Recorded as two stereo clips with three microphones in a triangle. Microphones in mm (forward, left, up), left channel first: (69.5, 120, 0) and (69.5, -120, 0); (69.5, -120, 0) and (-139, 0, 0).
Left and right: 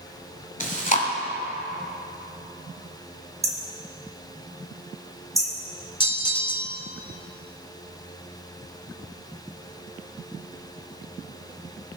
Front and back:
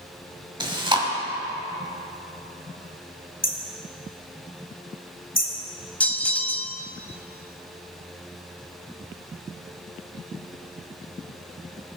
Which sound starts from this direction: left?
Chewing, at 0.6 s.